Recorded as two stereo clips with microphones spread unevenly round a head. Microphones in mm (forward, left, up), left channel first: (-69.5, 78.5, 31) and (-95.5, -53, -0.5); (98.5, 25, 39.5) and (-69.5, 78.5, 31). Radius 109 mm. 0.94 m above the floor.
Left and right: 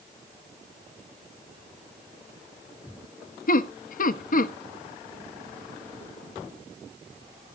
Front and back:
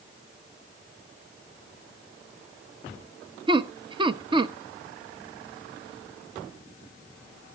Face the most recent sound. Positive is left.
turn(degrees=100)